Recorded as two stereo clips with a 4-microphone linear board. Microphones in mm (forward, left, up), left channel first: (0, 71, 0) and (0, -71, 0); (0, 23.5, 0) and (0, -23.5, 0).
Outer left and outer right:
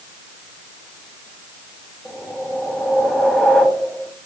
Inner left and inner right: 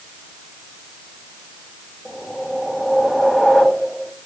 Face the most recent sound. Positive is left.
turn(degrees=5)  # may be behind; listen again after turning